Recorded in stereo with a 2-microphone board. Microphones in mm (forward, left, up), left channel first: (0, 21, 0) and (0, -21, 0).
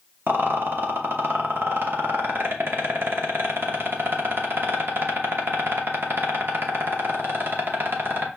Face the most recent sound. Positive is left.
turn(degrees=-55)  # may be behind; listen again after turning